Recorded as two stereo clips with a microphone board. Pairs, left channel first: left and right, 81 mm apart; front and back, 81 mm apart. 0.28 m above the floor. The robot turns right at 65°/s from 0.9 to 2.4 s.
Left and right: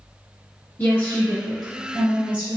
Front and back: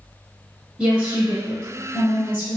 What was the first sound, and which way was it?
A woman speaking, 120° left.